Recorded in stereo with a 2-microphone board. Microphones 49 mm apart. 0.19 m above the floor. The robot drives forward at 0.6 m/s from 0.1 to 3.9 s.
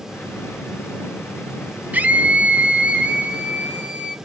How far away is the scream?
About 1.2 m.